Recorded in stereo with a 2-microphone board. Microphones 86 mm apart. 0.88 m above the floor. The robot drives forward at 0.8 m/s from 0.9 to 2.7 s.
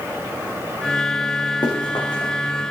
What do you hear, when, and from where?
1.6 s running footsteps: 55° left (ahead or behind), 3.5 m; by 2.3 s 60° left (ahead or behind), 3 m